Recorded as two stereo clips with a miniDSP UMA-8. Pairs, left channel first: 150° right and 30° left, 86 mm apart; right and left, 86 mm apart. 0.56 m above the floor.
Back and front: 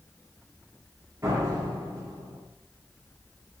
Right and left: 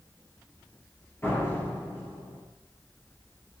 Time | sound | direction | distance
1.2 | a door slam | 25° right | 6.5 m